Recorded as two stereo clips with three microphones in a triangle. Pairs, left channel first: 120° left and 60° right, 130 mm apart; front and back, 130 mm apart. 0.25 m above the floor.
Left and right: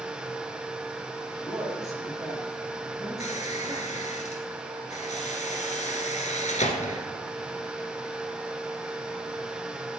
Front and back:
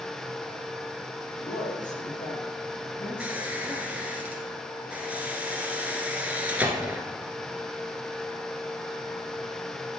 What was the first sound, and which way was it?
A woman speaking, 5° left.